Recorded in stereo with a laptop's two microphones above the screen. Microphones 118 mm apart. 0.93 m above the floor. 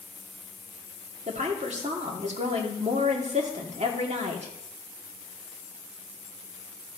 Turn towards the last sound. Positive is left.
turn(degrees=-75)  # may be behind; listen again after turning